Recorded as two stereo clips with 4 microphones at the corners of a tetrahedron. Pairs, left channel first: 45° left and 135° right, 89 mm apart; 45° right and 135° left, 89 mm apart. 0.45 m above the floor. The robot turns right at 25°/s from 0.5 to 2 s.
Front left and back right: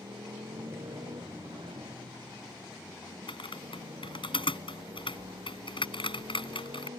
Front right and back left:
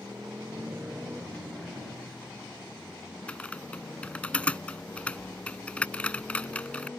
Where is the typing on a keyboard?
30° left.